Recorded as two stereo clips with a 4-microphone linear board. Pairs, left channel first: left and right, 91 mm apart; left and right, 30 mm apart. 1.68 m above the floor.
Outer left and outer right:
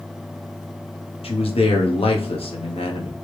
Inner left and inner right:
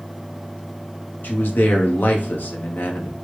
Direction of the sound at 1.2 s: 80° left.